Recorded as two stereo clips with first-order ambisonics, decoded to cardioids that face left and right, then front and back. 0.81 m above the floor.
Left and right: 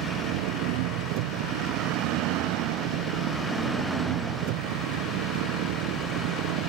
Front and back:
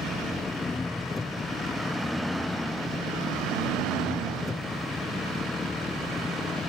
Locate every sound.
0.0 s an engine running: 80° right